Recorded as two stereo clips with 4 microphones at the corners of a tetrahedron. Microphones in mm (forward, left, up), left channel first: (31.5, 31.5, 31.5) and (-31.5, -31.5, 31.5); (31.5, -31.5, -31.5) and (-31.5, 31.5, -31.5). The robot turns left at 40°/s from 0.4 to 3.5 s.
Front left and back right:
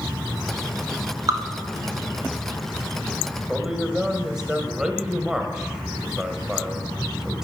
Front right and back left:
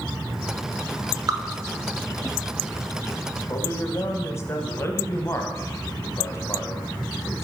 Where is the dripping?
175° right, 0.8 m; by 1.4 s straight behind, 0.8 m.